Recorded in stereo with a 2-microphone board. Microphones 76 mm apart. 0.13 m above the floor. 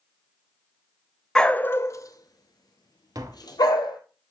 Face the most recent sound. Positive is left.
turn(degrees=-55)  # may be behind; listen again after turning